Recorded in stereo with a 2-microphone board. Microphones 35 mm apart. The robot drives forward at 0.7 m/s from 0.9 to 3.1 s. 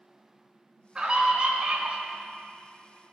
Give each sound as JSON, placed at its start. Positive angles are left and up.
{"t": 0.9, "sound": "a scream", "side_deg": -30, "distance_m": 1.6}